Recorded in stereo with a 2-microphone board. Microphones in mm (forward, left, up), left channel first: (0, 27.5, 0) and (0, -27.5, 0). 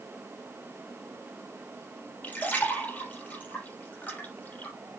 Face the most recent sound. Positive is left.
turn(degrees=30)  # may be behind; listen again after turning